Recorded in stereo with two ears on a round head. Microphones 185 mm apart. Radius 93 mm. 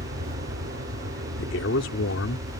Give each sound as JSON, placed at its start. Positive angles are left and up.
{"t": 0.0, "sound": "an aircraft", "side_deg": -55}
{"t": 1.4, "sound": "a man speaking", "side_deg": 65}